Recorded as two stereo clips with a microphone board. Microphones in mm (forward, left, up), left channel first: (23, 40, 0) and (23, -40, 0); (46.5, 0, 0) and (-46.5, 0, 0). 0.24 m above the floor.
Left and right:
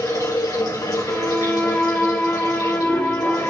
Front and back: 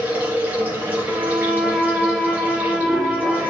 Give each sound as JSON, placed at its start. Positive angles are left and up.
{"t": 0.0, "sound": "running water", "azimuth_deg": 110, "distance_m": 5.0}
{"t": 1.1, "sound": "a violin", "azimuth_deg": 80, "distance_m": 1.3}